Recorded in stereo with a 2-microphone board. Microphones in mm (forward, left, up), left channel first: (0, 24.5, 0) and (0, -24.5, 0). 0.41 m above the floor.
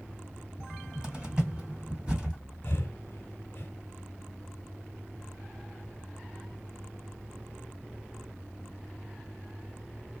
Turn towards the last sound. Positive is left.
turn(degrees=45)  # may be behind; listen again after turning